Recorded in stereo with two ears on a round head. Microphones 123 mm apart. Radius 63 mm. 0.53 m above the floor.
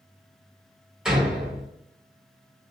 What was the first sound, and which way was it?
A door slam, 5° right (ahead or behind).